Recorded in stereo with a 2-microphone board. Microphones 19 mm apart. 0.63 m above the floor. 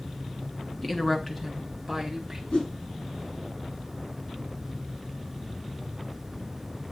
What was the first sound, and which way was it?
A woman speaking, 5° left (ahead or behind).